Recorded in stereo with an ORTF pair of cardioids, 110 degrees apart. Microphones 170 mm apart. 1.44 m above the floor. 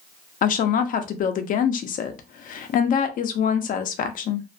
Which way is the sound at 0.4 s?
55° left.